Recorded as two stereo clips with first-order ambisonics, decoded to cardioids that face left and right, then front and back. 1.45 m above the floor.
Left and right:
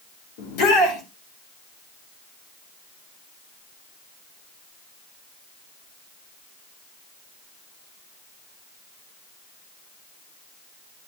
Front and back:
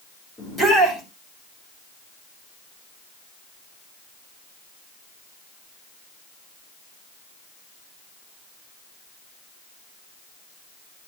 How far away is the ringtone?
No ringtone in this recording.